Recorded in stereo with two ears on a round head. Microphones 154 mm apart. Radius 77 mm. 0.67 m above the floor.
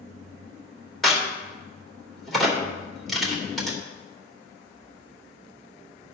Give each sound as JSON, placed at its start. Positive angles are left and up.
{"t": 1.0, "sound": "a crack", "side_deg": 0, "distance_m": 2.0}